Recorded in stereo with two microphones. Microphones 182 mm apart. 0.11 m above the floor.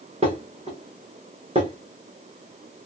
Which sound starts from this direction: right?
Dishes clattering, at 0.2 s.